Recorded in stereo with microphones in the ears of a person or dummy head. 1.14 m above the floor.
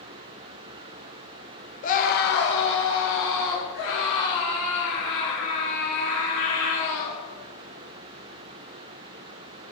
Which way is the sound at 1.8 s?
35° left (ahead or behind).